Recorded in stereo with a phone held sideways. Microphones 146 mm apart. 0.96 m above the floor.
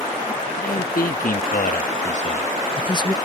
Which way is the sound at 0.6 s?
75° left (ahead or behind).